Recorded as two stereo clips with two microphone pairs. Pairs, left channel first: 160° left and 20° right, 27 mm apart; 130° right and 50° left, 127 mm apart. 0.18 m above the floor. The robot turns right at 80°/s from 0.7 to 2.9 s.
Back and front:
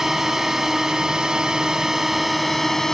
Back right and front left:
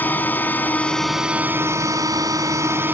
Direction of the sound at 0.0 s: 75° right.